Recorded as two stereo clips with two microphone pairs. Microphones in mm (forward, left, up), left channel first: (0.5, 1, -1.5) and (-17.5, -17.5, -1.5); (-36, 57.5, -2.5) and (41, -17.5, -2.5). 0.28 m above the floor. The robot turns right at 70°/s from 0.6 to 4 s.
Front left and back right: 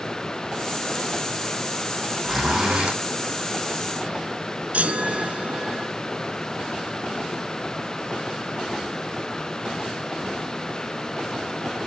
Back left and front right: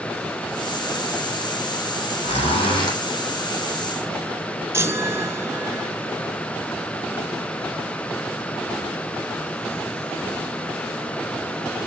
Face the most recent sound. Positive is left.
turn(degrees=-110)